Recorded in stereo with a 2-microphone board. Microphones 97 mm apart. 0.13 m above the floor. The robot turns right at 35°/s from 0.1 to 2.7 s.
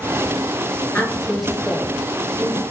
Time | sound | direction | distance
0.9 | a woman speaking | 20° left (ahead or behind) | 1.9 m